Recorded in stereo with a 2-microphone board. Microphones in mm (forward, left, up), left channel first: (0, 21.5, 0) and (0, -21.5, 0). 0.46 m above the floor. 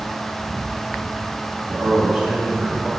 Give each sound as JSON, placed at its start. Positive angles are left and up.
{"t": 1.7, "sound": "a man speaking", "side_deg": -25, "distance_m": 3.0}